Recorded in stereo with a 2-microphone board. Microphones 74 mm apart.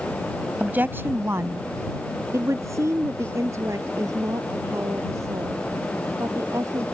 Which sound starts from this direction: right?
A woman speaking, at 0.6 s.